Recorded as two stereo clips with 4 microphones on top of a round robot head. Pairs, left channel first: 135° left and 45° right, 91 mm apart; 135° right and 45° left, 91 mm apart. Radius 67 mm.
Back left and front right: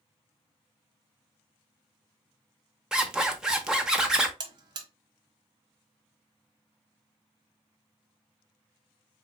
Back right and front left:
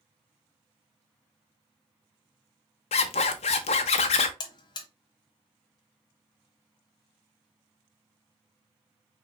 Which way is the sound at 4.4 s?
90° right.